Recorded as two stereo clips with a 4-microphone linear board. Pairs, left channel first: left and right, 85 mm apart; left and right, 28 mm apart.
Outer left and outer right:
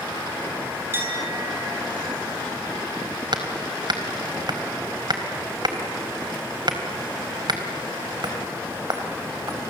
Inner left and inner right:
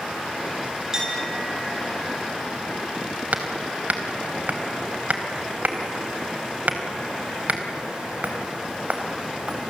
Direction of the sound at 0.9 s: 25° right (ahead or behind).